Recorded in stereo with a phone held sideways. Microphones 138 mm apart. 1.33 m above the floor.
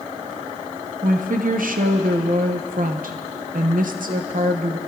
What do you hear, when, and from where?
1.0 s a woman speaking: 85° right, 0.7 m